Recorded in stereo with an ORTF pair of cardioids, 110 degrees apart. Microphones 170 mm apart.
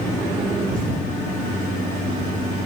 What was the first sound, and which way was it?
A thud, 55° right.